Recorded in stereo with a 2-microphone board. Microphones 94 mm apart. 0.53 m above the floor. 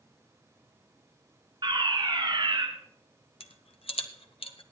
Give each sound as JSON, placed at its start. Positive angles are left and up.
{"t": 1.6, "sound": "a fire alarm", "side_deg": -55, "distance_m": 3.0}
{"t": 3.4, "sound": "a rattle", "side_deg": 80, "distance_m": 1.0}